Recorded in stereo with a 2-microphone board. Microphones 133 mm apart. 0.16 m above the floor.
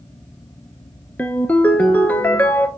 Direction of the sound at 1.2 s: 10° left (ahead or behind).